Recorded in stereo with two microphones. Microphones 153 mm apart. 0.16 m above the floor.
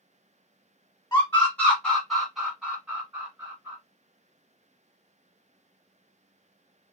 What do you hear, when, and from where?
1.1 s a scream: 15° left (ahead or behind), 1.4 m; by 3.8 s 20° right (ahead or behind), 1.8 m